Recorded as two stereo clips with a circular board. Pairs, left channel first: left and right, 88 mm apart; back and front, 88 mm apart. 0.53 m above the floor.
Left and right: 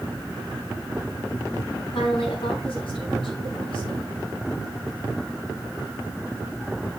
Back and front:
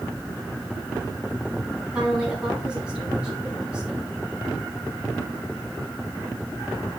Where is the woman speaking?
80° left, 4.5 m.